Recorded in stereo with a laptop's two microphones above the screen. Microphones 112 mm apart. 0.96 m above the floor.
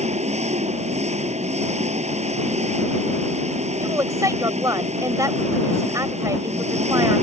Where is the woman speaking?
30° right (ahead or behind).